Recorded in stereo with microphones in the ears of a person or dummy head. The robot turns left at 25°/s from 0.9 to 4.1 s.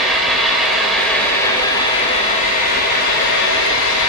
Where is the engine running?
Straight behind, 5.5 m; by 4.1 s 100° left, 5.5 m.